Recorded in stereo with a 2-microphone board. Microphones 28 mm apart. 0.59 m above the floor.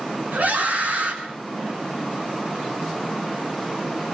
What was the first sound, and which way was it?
A scream, 80° right.